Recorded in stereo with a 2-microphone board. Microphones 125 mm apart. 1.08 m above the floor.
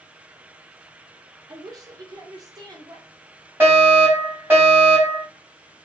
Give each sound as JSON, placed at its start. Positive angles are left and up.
{"t": 1.5, "sound": "a woman speaking", "side_deg": -30, "distance_m": 1.0}
{"t": 3.6, "sound": "a fire alarm", "side_deg": -15, "distance_m": 2.0}